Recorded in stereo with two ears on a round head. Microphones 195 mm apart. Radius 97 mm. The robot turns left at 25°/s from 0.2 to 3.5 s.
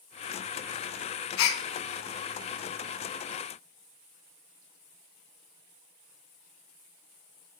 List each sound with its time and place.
1.4 s a gasp: 65° left (ahead or behind), 0.5 m; by 1.6 s 70° left (ahead or behind), 0.5 m